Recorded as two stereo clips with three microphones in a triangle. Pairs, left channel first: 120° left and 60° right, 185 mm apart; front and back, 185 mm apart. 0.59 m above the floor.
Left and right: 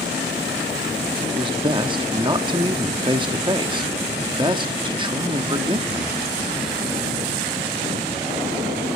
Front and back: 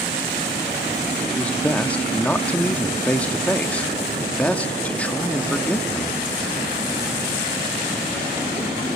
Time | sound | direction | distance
1.3 | a man speaking | 75° right | 0.8 m